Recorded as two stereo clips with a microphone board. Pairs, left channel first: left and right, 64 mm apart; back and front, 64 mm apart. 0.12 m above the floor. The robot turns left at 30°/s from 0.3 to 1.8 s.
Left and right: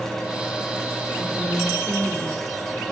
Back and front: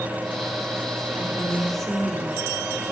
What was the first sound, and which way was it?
A woman speaking, straight ahead.